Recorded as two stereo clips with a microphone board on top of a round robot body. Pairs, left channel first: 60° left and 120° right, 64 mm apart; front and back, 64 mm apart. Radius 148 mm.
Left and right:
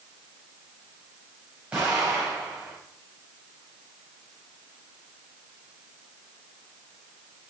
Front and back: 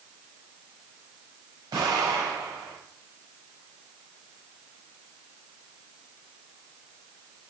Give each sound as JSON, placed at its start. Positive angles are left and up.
{"t": 1.7, "sound": "an explosion", "azimuth_deg": 170, "distance_m": 6.0}